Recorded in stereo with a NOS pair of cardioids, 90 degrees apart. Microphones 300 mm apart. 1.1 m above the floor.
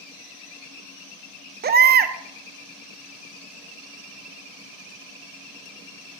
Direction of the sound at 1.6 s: 35° right.